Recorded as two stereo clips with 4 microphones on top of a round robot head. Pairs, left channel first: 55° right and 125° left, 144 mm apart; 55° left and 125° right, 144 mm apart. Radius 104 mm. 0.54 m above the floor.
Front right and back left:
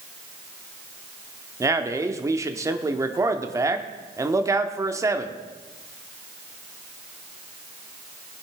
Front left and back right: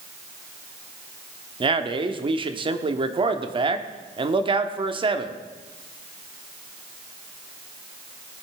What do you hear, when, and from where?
1.6 s a man speaking: 170° right, 1.1 m